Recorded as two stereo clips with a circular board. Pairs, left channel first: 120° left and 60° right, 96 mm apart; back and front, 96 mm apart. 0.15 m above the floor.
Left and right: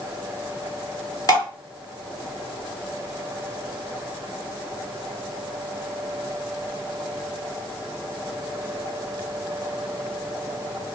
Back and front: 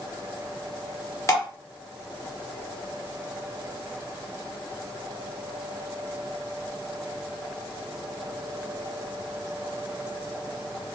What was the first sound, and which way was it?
Dripping, 145° left.